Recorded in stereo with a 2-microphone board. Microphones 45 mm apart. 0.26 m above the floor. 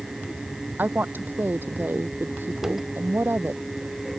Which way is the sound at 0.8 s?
45° right (ahead or behind).